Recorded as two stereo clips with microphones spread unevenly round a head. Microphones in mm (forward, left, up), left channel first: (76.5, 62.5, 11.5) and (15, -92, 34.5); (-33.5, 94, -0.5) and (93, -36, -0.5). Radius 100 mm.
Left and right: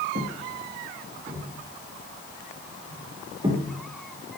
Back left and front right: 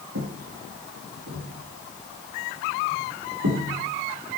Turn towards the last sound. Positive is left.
turn(degrees=-50)